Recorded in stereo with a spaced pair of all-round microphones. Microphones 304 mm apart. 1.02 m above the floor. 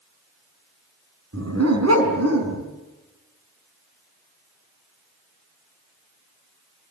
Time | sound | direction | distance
1.3 | a dog barking | 55° right (ahead or behind) | 4.5 m